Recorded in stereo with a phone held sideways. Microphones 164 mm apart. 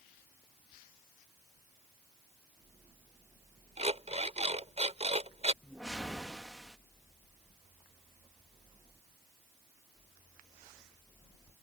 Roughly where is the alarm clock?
Right.